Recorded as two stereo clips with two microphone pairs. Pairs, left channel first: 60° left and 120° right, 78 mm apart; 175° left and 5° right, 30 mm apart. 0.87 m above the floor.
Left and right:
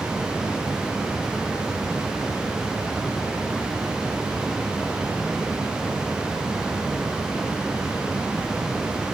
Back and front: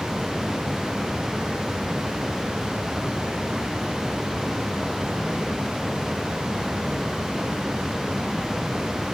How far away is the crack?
No crack in this recording.